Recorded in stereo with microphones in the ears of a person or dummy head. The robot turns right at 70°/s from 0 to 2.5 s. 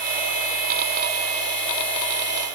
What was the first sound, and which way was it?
Only background noise.